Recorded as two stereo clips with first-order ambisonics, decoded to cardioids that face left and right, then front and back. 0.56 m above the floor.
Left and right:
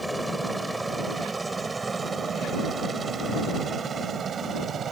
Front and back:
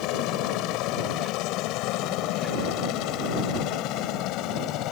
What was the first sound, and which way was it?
A helicopter, 5° right.